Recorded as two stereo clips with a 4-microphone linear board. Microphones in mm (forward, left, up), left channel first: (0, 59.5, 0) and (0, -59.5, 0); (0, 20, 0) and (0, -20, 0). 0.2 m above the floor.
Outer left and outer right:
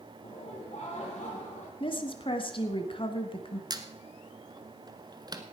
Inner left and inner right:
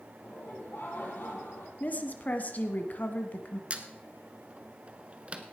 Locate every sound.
0.2 s laughter: 70° left (ahead or behind), 5.5 m; by 1.7 s 75° left (ahead or behind), 5 m
1.8 s a woman speaking: 45° left (ahead or behind), 1.5 m
3.7 s a squeak: 35° right (ahead or behind), 1.1 m